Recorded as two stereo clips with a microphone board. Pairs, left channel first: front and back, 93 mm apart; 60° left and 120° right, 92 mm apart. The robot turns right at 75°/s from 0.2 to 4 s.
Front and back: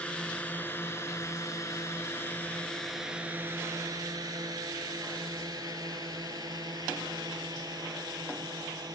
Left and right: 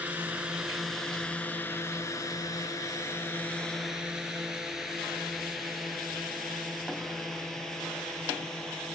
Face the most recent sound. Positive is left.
turn(degrees=145)